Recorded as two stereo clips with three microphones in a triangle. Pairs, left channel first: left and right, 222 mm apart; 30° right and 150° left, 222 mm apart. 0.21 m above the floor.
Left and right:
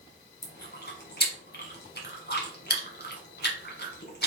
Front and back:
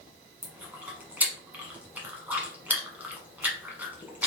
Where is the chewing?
70° left, 1.1 m.